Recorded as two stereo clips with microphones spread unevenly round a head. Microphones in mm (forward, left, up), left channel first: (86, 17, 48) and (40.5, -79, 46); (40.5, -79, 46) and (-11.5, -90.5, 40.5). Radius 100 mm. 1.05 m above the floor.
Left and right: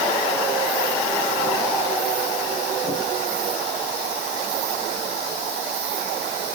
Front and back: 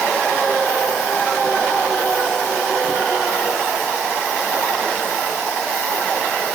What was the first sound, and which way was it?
Only background noise.